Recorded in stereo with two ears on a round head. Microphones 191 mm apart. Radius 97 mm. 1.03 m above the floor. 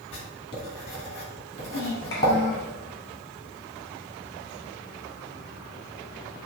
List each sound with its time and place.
0.1 s writing: 30° left (ahead or behind), 3 m
1.5 s a child speaking: 20° left (ahead or behind), 3 m